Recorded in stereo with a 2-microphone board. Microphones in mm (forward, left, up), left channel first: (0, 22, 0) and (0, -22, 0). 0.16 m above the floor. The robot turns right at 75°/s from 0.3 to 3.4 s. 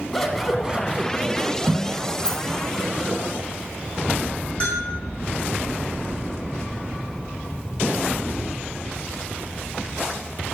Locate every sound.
0.1 s scissors: 170° left, 1.5 m; by 3.2 s 30° left, 1.5 m
2.2 s a rattle: 15° left (ahead or behind), 1.9 m; by 2.4 s 25° left (ahead or behind), 1.9 m
4.6 s a bell: 25° left (ahead or behind), 4 m